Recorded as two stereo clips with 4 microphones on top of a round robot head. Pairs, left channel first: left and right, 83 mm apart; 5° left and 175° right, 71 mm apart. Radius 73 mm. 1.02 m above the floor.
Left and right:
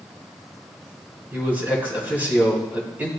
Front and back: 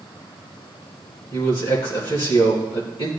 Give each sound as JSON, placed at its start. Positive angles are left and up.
{"t": 1.3, "sound": "a man speaking", "azimuth_deg": -20, "distance_m": 3.0}